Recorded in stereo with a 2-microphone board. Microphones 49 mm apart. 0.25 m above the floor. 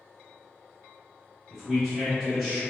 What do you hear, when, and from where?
1.5 s a man speaking: centre (ahead or behind), 1.0 m